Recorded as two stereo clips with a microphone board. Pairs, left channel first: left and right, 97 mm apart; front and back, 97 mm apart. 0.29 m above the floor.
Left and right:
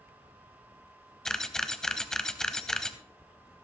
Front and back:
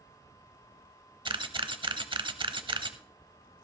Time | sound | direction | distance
1.2 | a camera shutter | 175° left | 0.7 m